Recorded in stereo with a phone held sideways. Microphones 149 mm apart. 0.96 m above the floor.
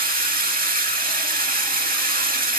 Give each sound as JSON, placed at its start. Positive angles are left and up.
{"t": 0.0, "sound": "running water", "side_deg": -75, "distance_m": 1.2}